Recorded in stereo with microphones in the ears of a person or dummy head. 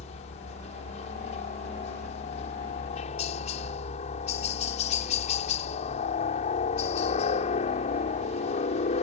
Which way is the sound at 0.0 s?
35° left (ahead or behind).